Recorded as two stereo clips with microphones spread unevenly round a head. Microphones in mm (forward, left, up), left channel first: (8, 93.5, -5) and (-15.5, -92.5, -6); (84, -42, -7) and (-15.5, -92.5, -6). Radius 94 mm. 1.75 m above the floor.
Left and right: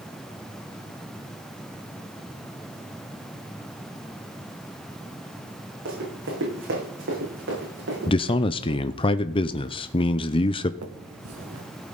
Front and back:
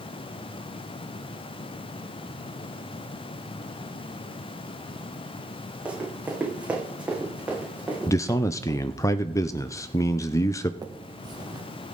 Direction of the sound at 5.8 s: 75° right.